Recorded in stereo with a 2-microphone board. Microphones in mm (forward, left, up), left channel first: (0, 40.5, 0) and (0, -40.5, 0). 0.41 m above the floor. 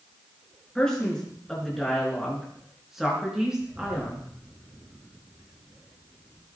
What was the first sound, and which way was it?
A man speaking, 10° left (ahead or behind).